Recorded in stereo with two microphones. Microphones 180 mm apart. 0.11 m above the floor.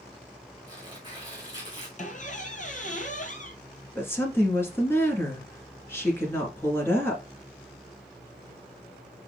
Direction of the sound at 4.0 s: 15° left (ahead or behind).